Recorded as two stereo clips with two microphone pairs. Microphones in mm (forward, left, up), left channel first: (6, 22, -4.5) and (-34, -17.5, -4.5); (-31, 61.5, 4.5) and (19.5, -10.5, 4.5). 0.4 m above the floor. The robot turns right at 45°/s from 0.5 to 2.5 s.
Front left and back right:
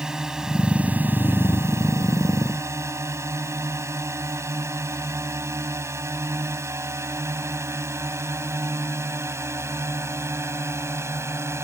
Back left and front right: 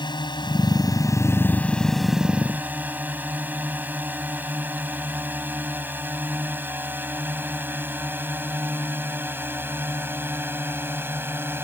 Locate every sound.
0.0 s a drone: 145° left; by 11.6 s 115° right